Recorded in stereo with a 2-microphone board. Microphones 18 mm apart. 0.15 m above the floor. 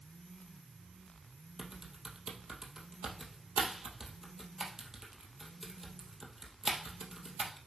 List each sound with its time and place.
1.6 s typing on a keyboard: 20° right (ahead or behind), 2 m